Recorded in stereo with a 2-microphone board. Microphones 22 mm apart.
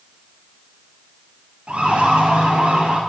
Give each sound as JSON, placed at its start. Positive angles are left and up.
{"t": 1.7, "sound": "a siren", "side_deg": -65, "distance_m": 8.0}